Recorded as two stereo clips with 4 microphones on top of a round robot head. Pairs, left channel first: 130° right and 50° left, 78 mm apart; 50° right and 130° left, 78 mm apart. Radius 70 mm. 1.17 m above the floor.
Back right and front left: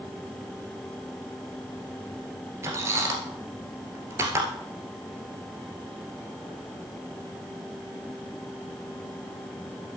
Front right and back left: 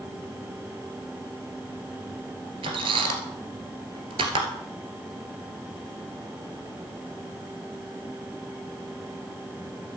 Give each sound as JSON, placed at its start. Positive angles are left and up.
{"t": 2.6, "sound": "a squeak", "azimuth_deg": 110, "distance_m": 1.9}